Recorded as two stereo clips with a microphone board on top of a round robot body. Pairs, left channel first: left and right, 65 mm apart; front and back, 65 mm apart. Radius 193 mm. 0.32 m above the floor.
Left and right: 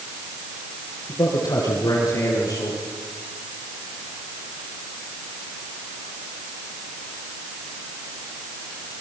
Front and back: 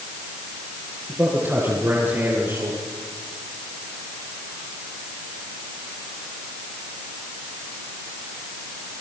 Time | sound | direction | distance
1.1 | a man speaking | 115° left | 7 m